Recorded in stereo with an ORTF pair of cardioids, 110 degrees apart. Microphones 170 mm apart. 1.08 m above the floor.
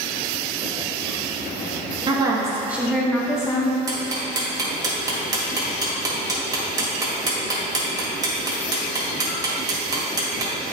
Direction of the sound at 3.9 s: 25° right.